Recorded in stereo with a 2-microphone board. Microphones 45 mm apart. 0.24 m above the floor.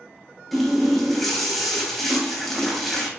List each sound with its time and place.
0.5 s a running tap: 5° left (ahead or behind), 0.7 m